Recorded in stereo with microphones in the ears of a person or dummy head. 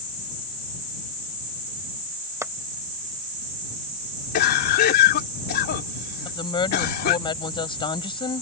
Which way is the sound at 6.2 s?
35° left (ahead or behind).